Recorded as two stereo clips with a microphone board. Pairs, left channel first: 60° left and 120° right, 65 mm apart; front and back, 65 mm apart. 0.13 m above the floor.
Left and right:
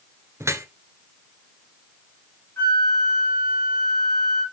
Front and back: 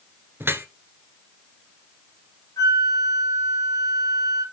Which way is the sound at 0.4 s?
140° right.